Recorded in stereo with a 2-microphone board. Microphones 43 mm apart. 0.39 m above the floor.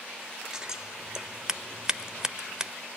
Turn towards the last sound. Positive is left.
turn(degrees=-15)  # may be behind; listen again after turning